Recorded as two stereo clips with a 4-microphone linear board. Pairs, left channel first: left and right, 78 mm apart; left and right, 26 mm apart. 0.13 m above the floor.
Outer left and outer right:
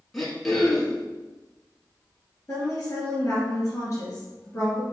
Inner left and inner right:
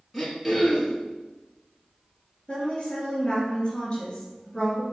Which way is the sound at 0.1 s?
5° left (ahead or behind).